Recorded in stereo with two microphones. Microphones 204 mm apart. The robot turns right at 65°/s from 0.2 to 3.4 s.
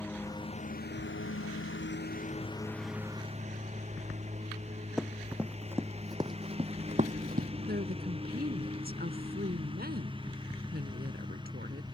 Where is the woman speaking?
50° right (ahead or behind).